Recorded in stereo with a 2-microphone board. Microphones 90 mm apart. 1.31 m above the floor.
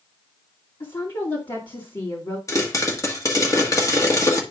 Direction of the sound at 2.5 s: 35° left (ahead or behind).